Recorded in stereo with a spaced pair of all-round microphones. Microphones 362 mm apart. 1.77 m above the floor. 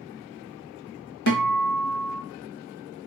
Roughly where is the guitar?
Left.